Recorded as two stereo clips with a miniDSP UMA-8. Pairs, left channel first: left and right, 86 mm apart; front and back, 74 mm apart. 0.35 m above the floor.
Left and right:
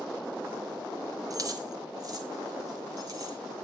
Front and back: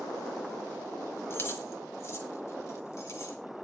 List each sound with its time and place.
1.3 s keys jangling: 50° right, 1.5 m; by 3.4 s 45° right, 2.5 m